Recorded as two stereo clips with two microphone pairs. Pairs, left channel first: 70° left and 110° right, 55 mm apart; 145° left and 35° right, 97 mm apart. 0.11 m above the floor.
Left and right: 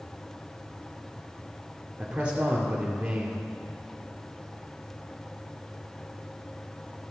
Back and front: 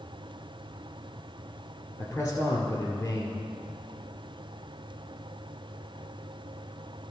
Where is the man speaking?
165° right, 1.7 m.